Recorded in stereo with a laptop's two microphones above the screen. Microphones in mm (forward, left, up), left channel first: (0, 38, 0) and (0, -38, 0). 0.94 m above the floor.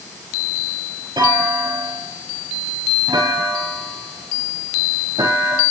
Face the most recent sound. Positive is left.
turn(degrees=-75)  # may be behind; listen again after turning